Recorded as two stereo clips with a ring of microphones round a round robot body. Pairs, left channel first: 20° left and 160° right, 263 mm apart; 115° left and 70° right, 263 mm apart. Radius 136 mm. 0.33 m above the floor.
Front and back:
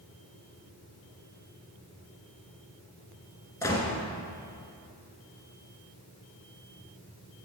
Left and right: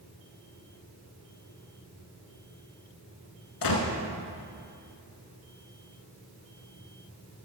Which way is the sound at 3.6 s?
100° left.